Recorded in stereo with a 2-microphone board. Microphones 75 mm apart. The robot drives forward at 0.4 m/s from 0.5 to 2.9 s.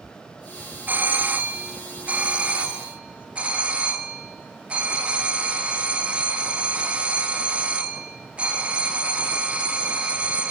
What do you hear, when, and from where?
0.9 s a doorbell: 25° right (ahead or behind), 1.6 m; by 10.5 s 15° right (ahead or behind), 2 m